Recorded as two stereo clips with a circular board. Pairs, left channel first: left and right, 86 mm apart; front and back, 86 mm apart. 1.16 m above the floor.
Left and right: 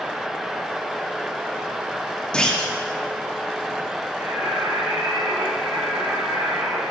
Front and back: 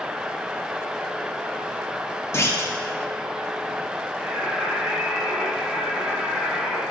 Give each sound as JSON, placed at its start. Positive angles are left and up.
{"t": 2.3, "sound": "a clunk", "azimuth_deg": 20, "distance_m": 0.7}
{"t": 4.2, "sound": "singing", "azimuth_deg": -110, "distance_m": 1.8}